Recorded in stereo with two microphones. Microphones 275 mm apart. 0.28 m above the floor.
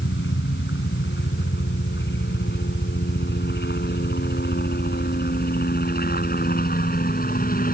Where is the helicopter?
40° left (ahead or behind); by 7.7 s 30° left (ahead or behind).